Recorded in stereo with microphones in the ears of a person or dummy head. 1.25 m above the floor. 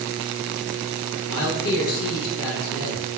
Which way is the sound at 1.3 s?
80° left.